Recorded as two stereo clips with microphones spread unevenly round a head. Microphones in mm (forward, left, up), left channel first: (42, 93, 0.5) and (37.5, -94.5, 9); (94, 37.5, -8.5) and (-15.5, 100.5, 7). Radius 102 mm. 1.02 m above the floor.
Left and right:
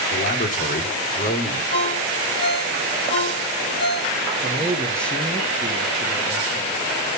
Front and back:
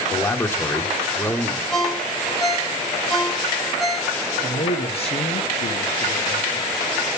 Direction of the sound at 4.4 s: 5° left.